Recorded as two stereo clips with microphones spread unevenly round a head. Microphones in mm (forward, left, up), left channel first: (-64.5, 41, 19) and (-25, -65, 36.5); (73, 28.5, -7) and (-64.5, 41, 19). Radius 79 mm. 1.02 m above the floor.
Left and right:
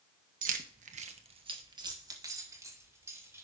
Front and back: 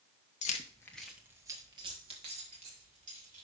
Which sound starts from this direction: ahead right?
Keys jangling, at 0.4 s.